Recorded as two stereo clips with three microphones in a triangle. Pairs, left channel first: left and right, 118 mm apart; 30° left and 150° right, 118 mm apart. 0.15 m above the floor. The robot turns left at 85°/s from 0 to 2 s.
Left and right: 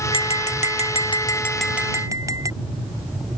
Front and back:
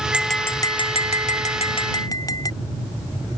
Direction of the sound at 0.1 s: 130° left.